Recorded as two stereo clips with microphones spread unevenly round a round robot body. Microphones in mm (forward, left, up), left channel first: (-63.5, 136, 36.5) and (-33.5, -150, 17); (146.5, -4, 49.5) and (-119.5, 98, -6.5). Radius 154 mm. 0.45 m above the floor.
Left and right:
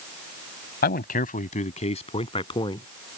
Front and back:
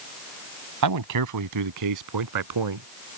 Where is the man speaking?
155° left; by 2.9 s 170° left.